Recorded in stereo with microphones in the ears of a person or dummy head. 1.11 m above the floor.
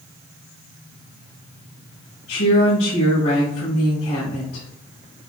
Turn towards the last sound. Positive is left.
turn(degrees=65)  # may be behind; listen again after turning